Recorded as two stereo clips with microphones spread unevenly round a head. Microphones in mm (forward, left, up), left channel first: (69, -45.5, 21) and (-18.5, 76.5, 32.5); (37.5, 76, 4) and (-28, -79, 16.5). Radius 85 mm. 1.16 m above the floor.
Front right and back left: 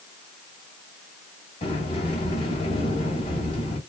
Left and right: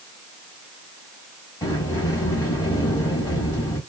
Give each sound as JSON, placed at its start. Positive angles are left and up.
{"t": 1.6, "sound": "a sliding door", "azimuth_deg": 0, "distance_m": 1.5}